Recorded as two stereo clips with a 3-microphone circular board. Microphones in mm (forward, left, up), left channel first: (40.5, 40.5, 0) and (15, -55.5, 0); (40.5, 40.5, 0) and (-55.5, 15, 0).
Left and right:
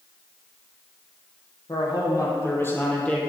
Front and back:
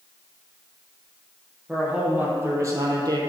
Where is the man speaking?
115° left, 3 m; by 3.2 s 155° left, 2.5 m.